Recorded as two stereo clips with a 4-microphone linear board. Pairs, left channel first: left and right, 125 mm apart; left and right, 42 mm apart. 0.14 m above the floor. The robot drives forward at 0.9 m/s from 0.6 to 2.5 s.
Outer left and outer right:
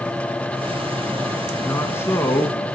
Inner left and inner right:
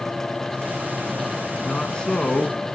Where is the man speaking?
20° left (ahead or behind), 1.6 m.